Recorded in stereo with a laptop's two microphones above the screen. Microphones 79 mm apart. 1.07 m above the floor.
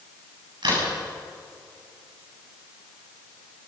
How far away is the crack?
About 7.5 m.